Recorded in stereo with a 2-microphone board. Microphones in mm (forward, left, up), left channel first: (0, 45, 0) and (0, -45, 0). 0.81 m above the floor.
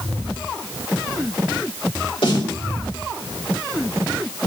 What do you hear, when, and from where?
2.2 s a snare drum: 75° left (ahead or behind), 3 m